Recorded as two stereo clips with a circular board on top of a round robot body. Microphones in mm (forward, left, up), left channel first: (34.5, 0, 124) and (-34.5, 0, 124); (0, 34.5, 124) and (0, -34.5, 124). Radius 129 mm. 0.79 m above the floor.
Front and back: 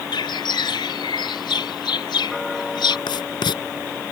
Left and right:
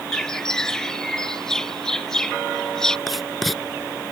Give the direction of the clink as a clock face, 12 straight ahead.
I don't hear a clink.